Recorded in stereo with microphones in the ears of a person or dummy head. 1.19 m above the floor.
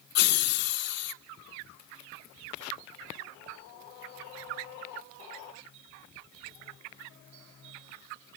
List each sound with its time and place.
0.1 s laughter: 50° left (ahead or behind), 0.9 m